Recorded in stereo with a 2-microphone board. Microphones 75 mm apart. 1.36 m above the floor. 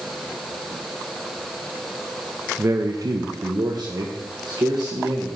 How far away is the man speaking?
About 0.7 m.